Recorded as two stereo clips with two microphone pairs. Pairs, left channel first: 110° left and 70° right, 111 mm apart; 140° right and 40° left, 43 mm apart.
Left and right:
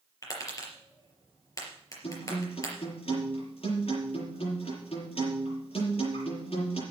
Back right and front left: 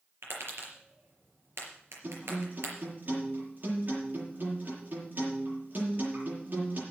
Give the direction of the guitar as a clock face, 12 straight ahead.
9 o'clock.